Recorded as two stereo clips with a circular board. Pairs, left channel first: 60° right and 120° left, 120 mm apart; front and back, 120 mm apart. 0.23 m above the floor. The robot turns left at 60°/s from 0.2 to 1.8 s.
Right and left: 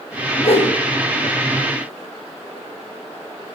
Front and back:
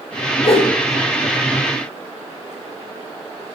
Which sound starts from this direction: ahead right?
A whoosh, at 0.4 s.